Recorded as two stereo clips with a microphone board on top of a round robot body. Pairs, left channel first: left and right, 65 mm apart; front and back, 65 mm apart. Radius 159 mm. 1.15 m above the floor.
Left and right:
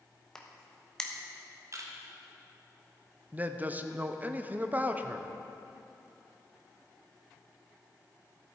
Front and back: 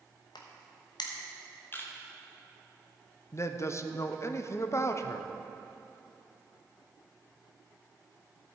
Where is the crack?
10° left, 1.1 m.